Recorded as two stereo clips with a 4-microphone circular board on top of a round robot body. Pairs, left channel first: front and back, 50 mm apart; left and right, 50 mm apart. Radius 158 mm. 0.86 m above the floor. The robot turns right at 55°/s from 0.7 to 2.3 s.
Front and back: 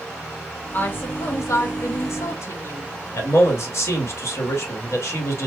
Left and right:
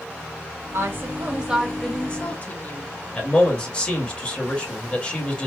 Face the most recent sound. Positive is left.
turn(degrees=20)